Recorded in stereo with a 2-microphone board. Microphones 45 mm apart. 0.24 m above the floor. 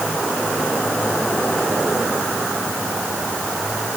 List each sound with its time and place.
Only background noise.